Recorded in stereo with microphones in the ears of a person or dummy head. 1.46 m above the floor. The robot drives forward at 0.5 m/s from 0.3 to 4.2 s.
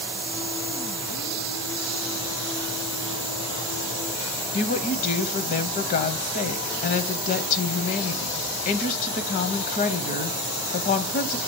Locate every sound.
4.5 s a woman speaking: 45° left (ahead or behind), 0.8 m